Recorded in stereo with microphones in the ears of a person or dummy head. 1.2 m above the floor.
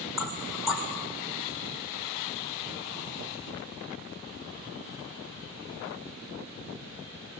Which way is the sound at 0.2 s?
5° right (ahead or behind).